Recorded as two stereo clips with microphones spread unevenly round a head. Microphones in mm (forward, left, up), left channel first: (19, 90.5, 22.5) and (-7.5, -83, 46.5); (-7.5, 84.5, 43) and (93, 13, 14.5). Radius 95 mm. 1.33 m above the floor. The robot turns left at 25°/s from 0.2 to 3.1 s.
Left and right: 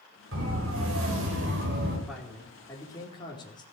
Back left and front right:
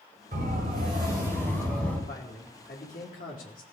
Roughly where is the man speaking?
Behind.